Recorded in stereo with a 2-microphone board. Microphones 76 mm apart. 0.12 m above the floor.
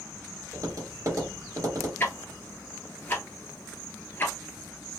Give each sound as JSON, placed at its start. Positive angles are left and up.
{"t": 0.5, "sound": "tapping", "side_deg": -50, "distance_m": 2.5}
{"t": 2.0, "sound": "ticking", "side_deg": 30, "distance_m": 1.2}